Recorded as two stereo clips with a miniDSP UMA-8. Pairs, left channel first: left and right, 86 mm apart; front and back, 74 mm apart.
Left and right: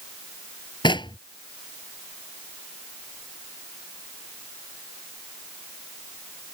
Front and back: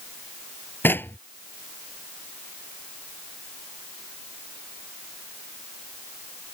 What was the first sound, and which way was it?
Knocking, 60° left.